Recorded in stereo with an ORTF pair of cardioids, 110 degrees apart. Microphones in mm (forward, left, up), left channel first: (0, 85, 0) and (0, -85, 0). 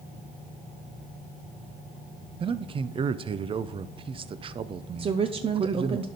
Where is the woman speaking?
35° right, 0.6 m.